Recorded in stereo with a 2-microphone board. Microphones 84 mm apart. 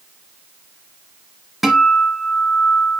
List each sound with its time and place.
1.6 s a guitar: 5° right (ahead or behind), 1.0 m